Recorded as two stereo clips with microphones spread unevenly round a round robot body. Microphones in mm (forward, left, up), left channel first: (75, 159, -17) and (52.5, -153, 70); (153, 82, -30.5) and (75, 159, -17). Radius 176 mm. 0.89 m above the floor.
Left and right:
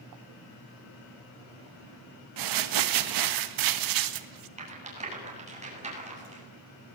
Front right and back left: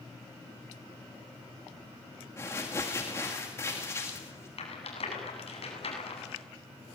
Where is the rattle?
25° right, 9 m.